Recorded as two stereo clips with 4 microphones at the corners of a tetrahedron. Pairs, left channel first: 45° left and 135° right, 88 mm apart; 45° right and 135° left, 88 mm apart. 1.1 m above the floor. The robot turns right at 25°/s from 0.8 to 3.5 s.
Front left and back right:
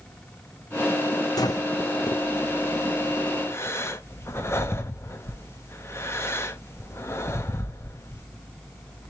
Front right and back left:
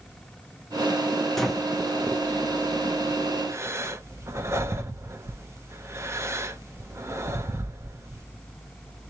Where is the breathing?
40° left, 0.6 m; by 8.2 s 95° left, 0.6 m.